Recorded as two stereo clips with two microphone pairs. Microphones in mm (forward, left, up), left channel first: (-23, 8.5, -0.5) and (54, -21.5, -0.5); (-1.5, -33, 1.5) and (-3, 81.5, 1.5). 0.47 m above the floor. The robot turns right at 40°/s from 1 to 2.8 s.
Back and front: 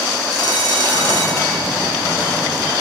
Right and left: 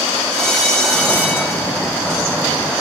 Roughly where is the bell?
Behind.